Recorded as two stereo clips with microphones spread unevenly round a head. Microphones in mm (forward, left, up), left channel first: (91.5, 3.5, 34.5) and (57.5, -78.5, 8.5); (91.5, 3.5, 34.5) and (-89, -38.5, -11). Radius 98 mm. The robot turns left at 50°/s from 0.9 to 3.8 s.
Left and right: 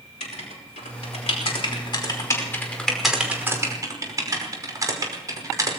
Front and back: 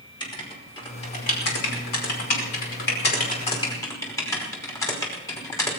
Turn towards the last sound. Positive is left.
turn(degrees=-60)